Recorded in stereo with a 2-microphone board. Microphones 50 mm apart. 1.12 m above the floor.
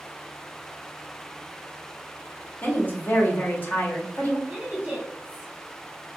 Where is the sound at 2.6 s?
40° left (ahead or behind), 1.1 m.